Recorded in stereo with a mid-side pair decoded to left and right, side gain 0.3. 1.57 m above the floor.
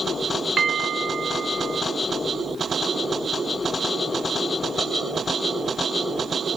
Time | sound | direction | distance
0.6 | a bell | 55° right | 0.7 m